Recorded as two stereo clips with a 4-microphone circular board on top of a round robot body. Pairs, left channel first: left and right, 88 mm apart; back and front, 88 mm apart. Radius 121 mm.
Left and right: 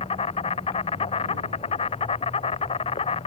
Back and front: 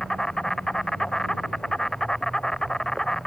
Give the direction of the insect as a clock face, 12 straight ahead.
9 o'clock.